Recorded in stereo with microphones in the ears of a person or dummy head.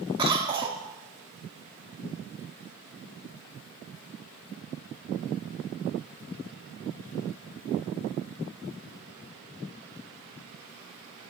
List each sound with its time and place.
0.2 s a cough: 25° right (ahead or behind), 0.9 m